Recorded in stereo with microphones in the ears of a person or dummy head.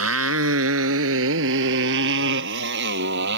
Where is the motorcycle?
80° right; by 3.4 s 65° right (ahead or behind).